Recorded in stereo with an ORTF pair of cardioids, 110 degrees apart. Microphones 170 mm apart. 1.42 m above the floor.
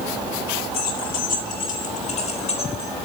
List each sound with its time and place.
0.7 s keys jangling: 65° left, 3.5 m; by 2.9 s 35° left, 4 m